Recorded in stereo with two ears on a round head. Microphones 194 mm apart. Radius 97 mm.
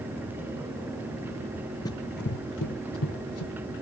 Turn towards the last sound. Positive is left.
turn(degrees=70)  # may be behind; listen again after turning